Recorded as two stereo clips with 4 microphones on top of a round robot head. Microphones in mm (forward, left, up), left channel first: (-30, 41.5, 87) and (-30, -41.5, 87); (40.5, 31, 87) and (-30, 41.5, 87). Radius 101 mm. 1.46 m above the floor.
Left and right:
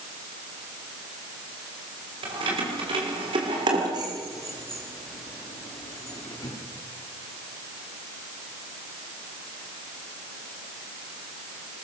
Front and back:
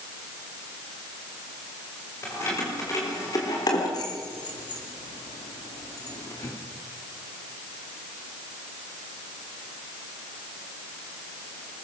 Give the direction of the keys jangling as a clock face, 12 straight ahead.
2 o'clock.